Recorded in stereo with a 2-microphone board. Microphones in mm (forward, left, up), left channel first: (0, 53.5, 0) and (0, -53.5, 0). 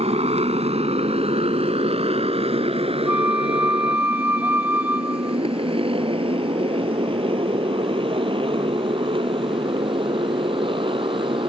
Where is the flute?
20° right (ahead or behind).